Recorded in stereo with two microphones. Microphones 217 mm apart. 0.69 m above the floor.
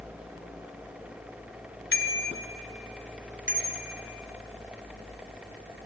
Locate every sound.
1.9 s a bicycle bell: 75° left (ahead or behind), 2.5 m; by 4.0 s 30° left (ahead or behind), 4.5 m